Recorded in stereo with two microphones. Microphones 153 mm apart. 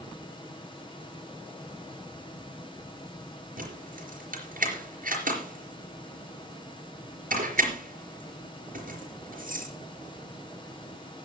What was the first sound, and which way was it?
Keys jangling, 70° right (ahead or behind).